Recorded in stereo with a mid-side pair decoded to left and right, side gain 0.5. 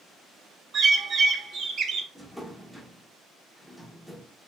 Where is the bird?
50° right, 0.6 m.